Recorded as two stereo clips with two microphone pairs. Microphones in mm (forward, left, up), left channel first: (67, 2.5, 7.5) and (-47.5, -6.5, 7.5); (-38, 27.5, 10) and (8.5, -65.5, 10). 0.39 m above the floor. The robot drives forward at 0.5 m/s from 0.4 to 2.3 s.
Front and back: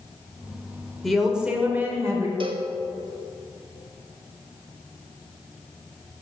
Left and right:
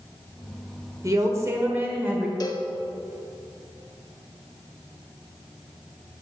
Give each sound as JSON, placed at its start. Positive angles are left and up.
{"t": 1.0, "sound": "a woman speaking", "azimuth_deg": -85, "distance_m": 1.1}
{"t": 2.4, "sound": "a cowbell", "azimuth_deg": 160, "distance_m": 0.6}